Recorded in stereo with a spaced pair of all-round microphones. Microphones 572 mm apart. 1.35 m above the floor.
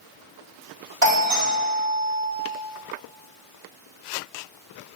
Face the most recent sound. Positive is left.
turn(degrees=-65)  # may be behind; listen again after turning